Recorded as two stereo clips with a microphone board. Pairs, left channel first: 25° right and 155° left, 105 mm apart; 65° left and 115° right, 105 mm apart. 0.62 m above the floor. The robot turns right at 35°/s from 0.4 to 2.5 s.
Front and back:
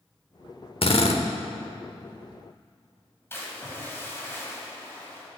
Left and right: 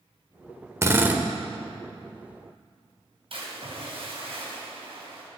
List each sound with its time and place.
0.8 s a drill: 50° right, 0.9 m; by 1.2 s 40° right, 0.9 m
3.3 s a splash: 90° right, 3.5 m